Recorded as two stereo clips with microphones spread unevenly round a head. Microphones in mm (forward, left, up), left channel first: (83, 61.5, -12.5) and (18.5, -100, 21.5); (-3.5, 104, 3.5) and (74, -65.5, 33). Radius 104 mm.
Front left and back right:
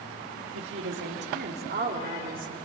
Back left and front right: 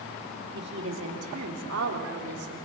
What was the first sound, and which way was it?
A woman speaking, 110° right.